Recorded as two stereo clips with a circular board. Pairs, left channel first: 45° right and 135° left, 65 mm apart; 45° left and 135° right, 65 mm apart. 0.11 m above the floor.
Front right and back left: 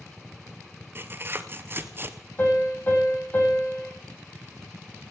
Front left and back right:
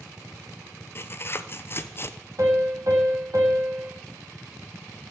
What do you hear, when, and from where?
0.9 s tearing paper: 85° left, 0.8 m
2.4 s a piano: 105° right, 4.5 m